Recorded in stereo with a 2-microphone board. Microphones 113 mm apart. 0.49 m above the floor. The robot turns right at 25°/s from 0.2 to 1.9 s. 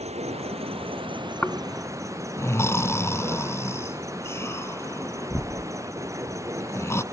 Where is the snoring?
10° left (ahead or behind); by 7.0 s 25° left (ahead or behind).